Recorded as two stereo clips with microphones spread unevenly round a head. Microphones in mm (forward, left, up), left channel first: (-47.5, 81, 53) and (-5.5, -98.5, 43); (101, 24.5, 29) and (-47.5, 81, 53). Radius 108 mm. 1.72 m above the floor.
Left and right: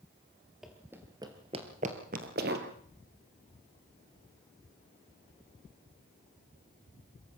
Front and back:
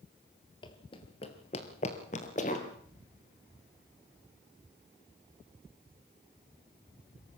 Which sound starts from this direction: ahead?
Running footsteps, at 0.6 s.